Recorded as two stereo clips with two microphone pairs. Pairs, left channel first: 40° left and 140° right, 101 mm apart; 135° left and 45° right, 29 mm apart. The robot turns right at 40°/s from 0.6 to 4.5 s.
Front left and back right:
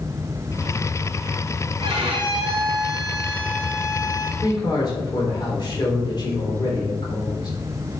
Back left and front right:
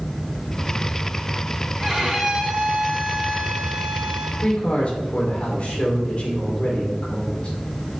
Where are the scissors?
No scissors in this recording.